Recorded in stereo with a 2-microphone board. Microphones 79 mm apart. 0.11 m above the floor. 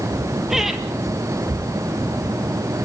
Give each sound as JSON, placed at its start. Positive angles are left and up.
{"t": 0.5, "sound": "laughter", "side_deg": -5, "distance_m": 3.0}